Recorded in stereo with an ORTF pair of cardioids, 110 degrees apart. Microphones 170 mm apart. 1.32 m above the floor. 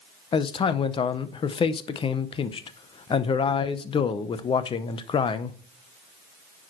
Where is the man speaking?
35° left, 0.8 m.